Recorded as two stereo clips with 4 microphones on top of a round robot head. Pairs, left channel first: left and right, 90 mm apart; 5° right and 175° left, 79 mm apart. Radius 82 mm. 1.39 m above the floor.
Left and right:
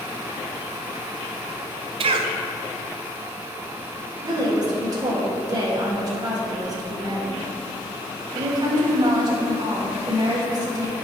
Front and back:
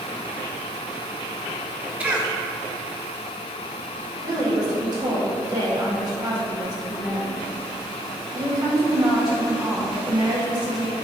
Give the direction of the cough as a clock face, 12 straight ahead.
4 o'clock.